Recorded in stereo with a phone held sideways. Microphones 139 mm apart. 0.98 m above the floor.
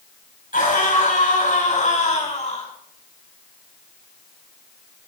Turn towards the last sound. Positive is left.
turn(degrees=60)  # may be behind; listen again after turning